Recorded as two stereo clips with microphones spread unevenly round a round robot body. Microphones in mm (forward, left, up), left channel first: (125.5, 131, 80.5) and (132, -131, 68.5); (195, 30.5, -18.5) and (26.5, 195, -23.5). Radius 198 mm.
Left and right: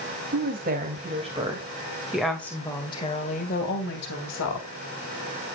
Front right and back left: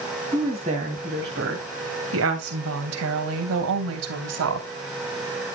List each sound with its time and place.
0.3 s a woman speaking: 145° right, 3 m; by 4.7 s 135° left, 2.5 m